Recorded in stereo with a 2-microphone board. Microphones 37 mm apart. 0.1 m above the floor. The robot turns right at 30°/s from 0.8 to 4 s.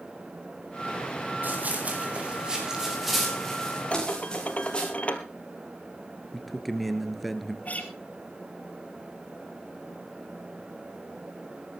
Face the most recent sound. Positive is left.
turn(degrees=40)  # may be behind; listen again after turning